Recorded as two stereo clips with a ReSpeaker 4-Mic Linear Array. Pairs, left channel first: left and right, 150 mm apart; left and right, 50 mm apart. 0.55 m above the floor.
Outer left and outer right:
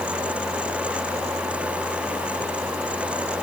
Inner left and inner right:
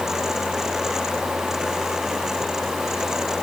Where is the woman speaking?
No woman speaking in this recording.